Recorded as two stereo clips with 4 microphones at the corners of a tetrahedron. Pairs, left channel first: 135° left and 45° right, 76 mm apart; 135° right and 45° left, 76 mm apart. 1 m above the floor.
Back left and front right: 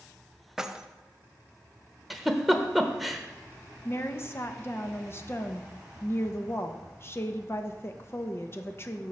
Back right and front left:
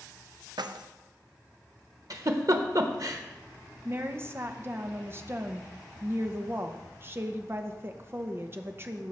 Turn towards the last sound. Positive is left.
turn(degrees=90)